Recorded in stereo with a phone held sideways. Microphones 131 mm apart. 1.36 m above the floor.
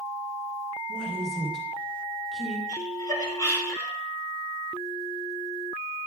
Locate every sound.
0.9 s a woman speaking: 5° left (ahead or behind), 2.0 m
2.7 s laughter: 25° left (ahead or behind), 4 m